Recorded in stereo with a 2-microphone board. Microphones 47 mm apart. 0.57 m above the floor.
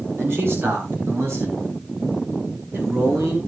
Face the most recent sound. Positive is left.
turn(degrees=-75)  # may be behind; listen again after turning